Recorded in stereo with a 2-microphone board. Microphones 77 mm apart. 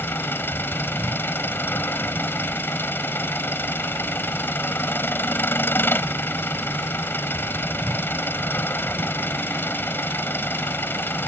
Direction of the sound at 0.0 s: 30° left (ahead or behind).